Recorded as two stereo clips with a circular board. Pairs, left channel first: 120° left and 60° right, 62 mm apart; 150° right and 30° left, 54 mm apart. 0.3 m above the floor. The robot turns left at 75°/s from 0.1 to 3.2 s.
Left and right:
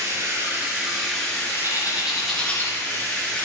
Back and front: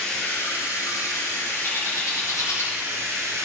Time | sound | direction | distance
0.0 | running water | 75° right | 3.5 m
1.6 | a bird | 105° right | 3.5 m